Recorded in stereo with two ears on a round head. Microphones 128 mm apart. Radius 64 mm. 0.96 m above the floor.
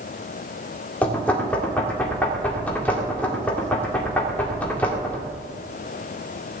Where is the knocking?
10° left (ahead or behind), 2 m.